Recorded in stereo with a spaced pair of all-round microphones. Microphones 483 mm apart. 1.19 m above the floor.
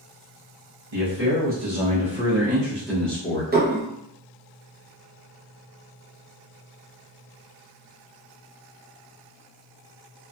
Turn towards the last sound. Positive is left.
turn(degrees=-20)  # may be behind; listen again after turning